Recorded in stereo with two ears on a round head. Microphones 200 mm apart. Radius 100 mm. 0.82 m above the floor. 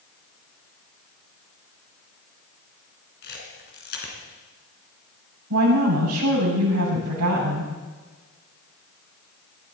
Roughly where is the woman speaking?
Right.